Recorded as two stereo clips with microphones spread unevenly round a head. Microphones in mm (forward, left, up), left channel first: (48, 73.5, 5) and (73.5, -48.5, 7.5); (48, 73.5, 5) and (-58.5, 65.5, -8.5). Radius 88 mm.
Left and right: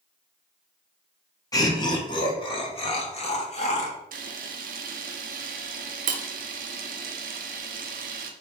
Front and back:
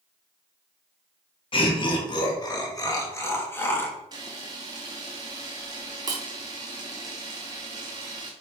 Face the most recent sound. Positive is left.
turn(degrees=-110)